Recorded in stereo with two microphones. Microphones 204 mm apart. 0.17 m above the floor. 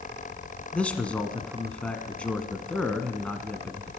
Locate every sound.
0.7 s a man speaking: 5° left (ahead or behind), 1.5 m